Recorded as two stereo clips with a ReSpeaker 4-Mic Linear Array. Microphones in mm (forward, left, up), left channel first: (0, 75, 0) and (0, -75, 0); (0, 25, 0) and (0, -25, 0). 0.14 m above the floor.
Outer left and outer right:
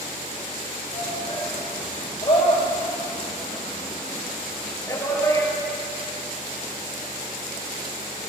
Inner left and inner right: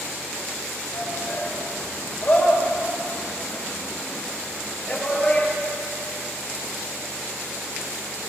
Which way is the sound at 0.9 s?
50° left (ahead or behind).